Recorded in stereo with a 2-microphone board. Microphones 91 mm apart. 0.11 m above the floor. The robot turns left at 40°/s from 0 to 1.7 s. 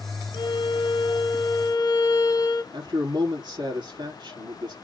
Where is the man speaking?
60° right (ahead or behind), 3.5 m.